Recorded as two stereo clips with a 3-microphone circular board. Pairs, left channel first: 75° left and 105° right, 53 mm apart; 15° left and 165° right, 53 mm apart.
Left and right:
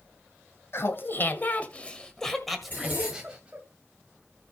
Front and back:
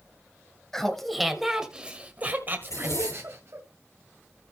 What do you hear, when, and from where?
0.7 s laughter: 95° left, 1.8 m; by 3.6 s 170° right, 2.0 m
2.6 s a zipper: 20° left, 9.5 m